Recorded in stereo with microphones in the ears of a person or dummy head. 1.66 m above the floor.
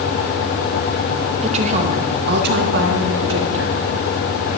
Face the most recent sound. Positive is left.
turn(degrees=-80)